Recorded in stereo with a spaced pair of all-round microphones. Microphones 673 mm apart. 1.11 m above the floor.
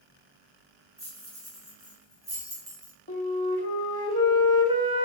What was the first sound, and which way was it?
Keys jangling, 5° right (ahead or behind).